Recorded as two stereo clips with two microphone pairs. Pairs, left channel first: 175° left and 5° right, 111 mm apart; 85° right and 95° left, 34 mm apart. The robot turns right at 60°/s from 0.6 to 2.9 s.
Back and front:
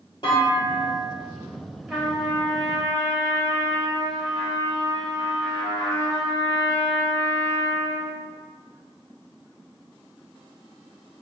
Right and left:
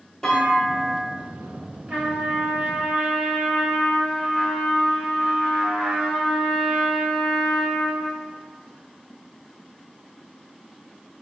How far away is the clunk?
About 1.7 m.